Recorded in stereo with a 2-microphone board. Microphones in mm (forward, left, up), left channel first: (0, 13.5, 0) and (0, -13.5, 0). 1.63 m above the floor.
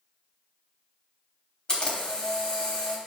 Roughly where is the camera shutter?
Left.